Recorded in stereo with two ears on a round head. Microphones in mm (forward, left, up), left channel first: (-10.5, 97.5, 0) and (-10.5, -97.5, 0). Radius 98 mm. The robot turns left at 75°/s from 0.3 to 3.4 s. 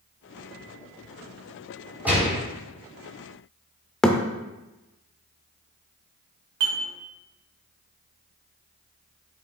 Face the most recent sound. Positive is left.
turn(degrees=-85)